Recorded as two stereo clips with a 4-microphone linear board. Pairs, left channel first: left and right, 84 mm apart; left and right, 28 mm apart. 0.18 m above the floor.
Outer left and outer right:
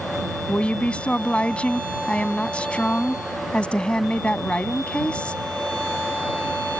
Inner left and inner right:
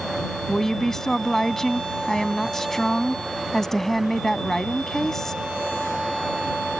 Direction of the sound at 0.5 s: 15° left (ahead or behind).